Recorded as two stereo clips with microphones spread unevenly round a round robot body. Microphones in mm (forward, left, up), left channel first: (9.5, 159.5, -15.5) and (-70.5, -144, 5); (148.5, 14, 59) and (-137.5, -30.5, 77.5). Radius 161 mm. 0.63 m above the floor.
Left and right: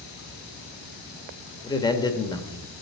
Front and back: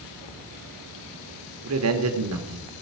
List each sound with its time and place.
1.6 s a man speaking: 150° left, 1.6 m